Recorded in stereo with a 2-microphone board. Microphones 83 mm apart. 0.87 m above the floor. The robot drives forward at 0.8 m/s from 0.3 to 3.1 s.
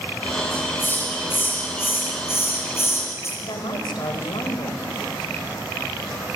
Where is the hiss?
25° left (ahead or behind), 9 m; by 3.3 s 35° left (ahead or behind), 7 m.